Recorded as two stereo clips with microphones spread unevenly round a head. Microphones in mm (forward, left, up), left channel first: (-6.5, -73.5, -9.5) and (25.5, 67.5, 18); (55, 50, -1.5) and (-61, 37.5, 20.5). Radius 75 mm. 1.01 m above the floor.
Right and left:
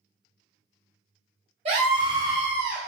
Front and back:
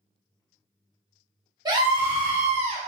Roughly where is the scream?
Behind left.